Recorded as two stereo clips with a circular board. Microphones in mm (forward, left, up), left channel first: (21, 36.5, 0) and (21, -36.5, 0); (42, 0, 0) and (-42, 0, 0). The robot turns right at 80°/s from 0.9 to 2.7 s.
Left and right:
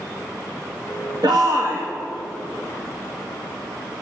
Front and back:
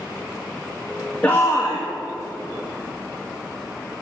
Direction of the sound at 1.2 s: 75° right.